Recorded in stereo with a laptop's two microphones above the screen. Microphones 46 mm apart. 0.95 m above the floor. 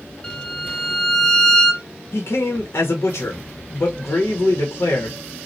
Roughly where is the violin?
Centre.